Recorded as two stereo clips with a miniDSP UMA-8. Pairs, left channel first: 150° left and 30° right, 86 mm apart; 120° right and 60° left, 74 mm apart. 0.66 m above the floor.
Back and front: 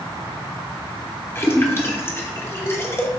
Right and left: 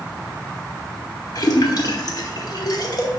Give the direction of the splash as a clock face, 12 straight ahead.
5 o'clock.